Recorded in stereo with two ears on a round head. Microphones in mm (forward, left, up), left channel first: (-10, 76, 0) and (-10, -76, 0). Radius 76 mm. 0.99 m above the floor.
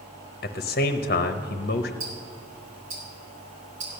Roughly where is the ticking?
Right.